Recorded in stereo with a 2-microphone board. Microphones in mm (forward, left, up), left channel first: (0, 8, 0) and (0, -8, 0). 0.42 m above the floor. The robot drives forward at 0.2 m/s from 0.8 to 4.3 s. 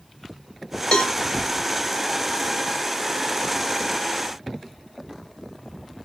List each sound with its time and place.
0.9 s a cowbell: 75° left (ahead or behind), 1.1 m